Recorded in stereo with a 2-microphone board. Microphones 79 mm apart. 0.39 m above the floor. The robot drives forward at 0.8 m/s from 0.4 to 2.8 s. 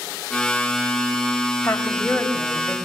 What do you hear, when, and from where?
1.6 s a woman speaking: 25° left (ahead or behind), 2 m; by 2.8 s 15° left (ahead or behind), 3 m